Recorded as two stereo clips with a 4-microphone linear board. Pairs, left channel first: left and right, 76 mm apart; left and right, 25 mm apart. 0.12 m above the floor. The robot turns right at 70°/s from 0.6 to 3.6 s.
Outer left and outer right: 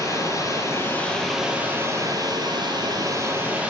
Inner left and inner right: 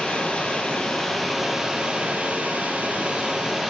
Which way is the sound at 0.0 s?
130° left.